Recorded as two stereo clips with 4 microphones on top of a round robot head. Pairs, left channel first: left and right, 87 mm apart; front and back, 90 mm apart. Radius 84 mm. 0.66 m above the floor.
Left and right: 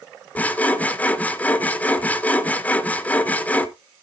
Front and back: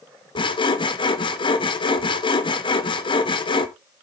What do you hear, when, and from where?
0.3 s sawing: 20° left, 1.2 m